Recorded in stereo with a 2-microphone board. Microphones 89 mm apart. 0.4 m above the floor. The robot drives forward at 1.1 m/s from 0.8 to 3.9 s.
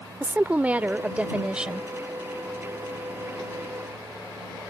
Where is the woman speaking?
20° right (ahead or behind); by 1.9 s 10° right (ahead or behind).